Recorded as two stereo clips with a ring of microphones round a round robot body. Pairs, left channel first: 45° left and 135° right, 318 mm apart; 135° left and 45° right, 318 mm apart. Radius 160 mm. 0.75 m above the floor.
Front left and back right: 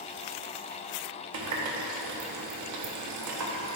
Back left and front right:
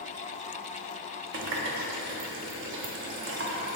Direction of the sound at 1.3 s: 100° right.